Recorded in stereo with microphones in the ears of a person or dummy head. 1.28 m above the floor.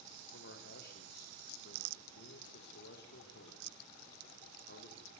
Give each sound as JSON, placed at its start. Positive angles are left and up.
{"t": 0.3, "sound": "a man speaking", "side_deg": 65, "distance_m": 3.5}